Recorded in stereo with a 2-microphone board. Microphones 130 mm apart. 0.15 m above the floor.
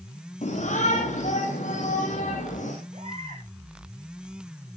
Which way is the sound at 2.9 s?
50° right (ahead or behind).